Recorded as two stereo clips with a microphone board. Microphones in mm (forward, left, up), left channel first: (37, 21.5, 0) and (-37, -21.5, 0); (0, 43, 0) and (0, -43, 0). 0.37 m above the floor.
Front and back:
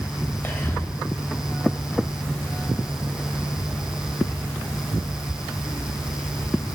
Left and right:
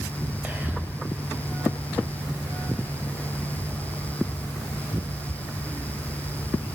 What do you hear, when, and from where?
0.4 s whispering: 25° right, 1.4 m